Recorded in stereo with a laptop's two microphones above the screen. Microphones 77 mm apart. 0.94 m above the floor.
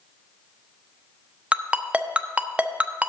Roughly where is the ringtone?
Centre.